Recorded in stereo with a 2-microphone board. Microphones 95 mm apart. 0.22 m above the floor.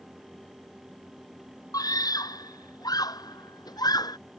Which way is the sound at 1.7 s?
40° left (ahead or behind).